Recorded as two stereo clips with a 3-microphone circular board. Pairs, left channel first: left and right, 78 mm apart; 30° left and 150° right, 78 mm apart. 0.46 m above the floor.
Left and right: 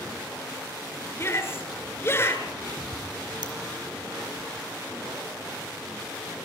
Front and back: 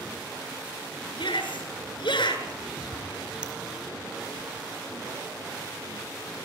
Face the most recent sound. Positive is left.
turn(degrees=-70)